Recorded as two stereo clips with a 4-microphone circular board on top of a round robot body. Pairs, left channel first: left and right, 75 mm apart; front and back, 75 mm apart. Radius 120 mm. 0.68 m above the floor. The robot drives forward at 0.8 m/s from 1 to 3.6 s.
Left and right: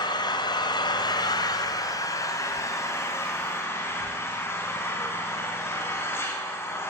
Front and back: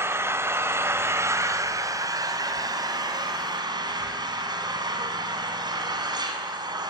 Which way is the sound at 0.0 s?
120° left.